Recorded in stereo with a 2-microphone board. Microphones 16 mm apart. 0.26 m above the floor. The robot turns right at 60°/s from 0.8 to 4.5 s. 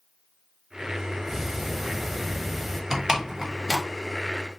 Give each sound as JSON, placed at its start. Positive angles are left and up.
{"t": 1.3, "sound": "ticking", "side_deg": -25, "distance_m": 0.8}
{"t": 2.9, "sound": "a door slam", "side_deg": -30, "distance_m": 0.9}